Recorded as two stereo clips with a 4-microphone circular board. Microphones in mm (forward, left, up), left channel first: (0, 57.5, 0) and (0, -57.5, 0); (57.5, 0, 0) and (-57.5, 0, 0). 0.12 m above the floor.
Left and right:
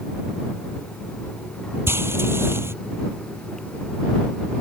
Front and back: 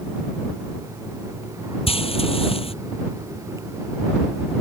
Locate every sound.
1.9 s frying: 25° right